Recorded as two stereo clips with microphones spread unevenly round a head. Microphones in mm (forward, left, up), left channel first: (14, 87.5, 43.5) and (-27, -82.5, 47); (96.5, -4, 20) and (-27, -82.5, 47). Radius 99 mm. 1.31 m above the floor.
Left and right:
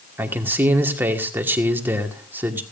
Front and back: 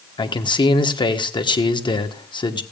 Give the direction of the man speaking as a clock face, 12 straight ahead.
1 o'clock.